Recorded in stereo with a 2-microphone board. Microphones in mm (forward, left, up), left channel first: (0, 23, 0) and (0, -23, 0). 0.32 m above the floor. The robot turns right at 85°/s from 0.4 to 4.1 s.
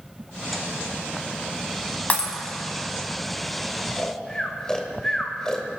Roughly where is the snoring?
Left.